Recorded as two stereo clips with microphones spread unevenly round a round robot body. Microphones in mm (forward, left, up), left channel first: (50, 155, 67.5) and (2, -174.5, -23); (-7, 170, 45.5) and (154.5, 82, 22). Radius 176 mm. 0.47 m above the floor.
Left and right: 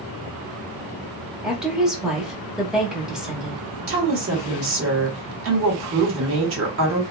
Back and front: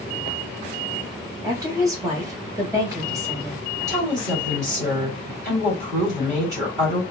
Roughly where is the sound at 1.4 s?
Ahead right.